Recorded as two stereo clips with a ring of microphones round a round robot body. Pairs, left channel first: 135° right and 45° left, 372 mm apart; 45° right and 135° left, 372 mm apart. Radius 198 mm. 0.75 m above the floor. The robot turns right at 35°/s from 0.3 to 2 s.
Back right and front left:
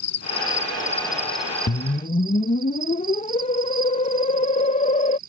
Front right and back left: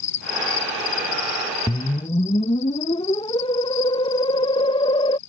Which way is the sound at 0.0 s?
85° right.